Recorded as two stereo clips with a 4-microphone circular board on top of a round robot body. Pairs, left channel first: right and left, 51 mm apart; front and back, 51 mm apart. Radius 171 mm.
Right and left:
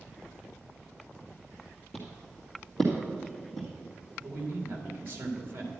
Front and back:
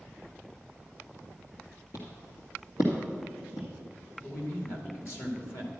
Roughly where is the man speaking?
Ahead left.